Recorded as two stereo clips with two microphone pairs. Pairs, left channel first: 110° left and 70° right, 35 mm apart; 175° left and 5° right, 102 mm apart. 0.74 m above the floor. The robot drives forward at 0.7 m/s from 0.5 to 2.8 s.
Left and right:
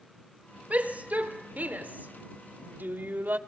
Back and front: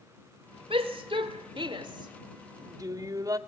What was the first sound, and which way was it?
A shout, 25° right.